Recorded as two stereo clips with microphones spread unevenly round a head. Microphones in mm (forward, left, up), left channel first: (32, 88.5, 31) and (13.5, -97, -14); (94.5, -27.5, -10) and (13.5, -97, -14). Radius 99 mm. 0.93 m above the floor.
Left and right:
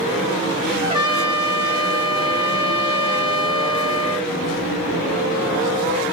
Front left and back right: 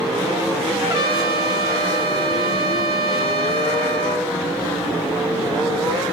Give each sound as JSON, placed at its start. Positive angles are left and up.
{"t": 0.8, "sound": "a trumpet", "azimuth_deg": -175, "distance_m": 0.8}